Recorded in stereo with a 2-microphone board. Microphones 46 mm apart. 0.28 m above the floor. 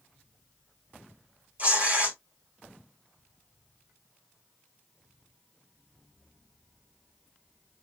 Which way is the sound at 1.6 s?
35° right (ahead or behind).